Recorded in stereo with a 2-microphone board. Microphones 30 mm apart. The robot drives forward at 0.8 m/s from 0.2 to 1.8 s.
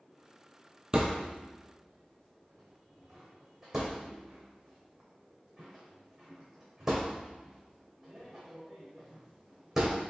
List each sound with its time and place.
0.9 s a thud: 30° right (ahead or behind), 0.7 m; by 10.0 s 15° right (ahead or behind), 1.3 m